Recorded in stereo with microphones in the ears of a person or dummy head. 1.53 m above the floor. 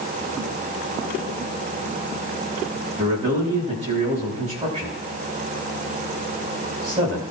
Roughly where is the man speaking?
Right.